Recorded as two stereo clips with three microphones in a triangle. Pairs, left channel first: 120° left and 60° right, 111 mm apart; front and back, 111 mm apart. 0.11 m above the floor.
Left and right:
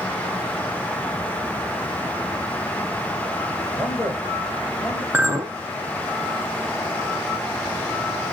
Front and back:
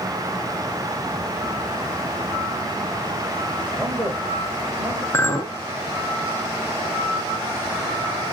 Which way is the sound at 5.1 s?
15° right.